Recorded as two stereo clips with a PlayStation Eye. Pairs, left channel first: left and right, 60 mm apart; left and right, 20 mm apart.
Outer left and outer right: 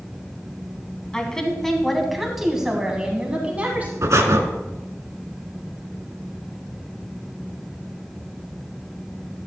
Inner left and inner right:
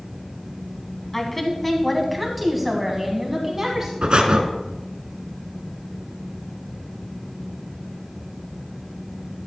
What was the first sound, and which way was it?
A woman speaking, 15° left (ahead or behind).